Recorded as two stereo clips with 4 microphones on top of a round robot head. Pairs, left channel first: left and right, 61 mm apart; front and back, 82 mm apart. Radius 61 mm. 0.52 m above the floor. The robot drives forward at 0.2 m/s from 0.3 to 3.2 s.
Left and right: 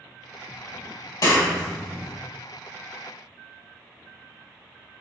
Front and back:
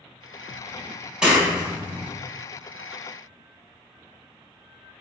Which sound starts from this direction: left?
A clap, at 1.2 s.